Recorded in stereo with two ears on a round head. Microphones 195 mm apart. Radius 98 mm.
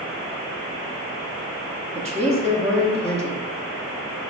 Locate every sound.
1.9 s a woman speaking: 30° right (ahead or behind), 0.7 m